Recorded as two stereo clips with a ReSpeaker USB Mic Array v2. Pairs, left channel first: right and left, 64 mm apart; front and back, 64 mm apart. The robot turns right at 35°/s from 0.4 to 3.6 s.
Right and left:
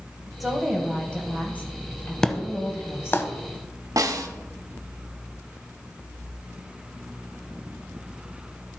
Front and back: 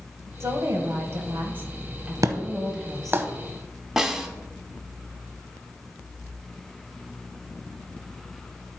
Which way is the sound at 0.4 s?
Straight behind.